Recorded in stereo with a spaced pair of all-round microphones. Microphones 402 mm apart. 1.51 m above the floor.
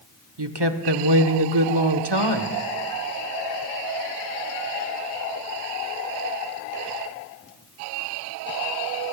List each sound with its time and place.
0.4 s a woman speaking: 80° right, 1.1 m